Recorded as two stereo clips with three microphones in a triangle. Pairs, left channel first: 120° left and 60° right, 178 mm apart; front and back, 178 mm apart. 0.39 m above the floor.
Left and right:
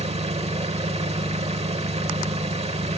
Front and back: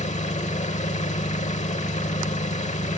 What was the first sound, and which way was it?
An engine running, 25° right.